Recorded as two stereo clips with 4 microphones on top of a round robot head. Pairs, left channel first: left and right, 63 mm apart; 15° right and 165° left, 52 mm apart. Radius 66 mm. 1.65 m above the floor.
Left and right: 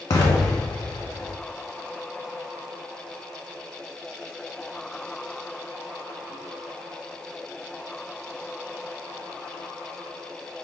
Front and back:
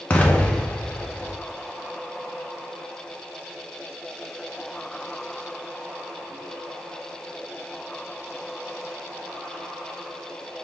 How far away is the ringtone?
I don't hear a ringtone.